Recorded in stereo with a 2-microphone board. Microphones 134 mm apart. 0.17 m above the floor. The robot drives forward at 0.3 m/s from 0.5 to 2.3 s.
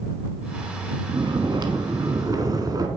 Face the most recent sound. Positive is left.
turn(degrees=-30)  # may be behind; listen again after turning